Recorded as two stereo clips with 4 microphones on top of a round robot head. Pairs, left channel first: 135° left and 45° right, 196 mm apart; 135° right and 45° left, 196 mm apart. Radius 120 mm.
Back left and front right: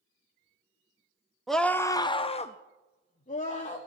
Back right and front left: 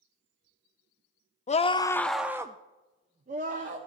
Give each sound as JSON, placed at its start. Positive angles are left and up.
{"t": 1.5, "sound": "a scream", "azimuth_deg": -135, "distance_m": 0.6}